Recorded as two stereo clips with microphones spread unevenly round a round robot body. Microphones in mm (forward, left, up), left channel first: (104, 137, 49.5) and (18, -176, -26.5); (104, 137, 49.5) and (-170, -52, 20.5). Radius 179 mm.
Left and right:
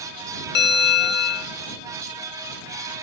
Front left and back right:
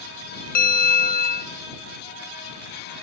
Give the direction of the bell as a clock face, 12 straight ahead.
11 o'clock.